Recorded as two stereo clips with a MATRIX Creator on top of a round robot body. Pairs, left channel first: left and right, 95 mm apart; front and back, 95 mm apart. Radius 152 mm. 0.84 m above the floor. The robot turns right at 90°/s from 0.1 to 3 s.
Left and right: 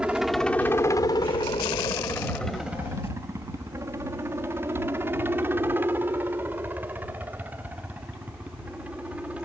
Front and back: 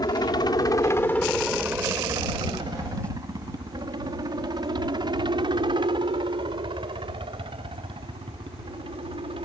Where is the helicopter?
15° right; by 9.4 s 165° right.